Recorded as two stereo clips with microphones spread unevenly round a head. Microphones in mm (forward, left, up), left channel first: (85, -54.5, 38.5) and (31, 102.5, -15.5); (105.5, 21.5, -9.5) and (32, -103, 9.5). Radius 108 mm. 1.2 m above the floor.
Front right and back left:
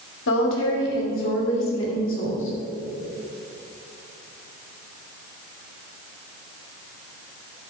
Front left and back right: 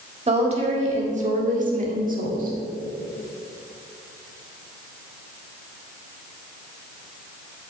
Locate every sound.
0.3 s a woman speaking: 75° right, 2.5 m; by 2.6 s 100° right, 3 m